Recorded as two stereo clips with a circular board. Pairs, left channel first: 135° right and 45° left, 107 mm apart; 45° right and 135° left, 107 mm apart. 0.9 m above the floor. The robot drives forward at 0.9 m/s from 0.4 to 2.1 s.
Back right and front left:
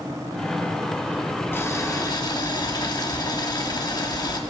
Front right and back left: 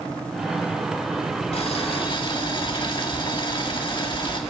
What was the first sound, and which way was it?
Boiling, 70° right.